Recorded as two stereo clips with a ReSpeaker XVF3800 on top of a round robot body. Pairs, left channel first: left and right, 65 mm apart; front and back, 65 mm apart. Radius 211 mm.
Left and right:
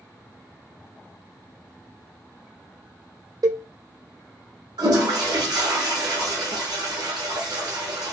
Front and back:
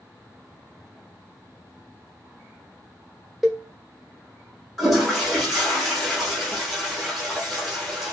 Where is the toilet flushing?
90° right, 1.0 m.